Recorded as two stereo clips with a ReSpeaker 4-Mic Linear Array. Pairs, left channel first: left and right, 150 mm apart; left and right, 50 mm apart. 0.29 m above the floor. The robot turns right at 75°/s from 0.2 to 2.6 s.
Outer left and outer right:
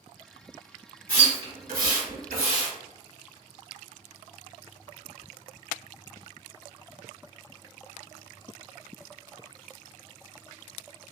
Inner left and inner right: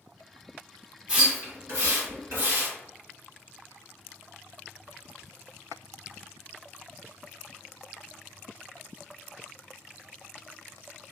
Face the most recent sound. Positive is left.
turn(degrees=-45)  # may be behind; listen again after turning